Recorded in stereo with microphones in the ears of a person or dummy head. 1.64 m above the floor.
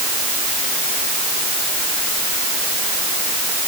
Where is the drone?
No drone in this recording.